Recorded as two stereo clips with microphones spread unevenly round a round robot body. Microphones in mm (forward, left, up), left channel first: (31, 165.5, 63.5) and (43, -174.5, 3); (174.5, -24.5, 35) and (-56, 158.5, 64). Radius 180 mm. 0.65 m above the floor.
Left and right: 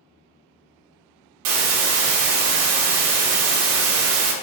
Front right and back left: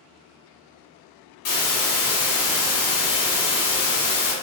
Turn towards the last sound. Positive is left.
turn(degrees=-95)